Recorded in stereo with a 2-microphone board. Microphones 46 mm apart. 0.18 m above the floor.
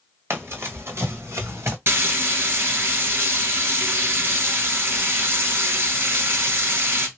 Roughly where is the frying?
Right.